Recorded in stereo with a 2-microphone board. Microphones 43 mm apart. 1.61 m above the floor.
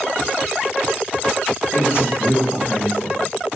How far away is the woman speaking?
About 3 m.